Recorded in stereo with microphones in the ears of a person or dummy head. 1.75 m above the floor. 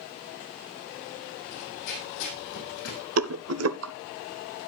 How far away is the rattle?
About 0.8 m.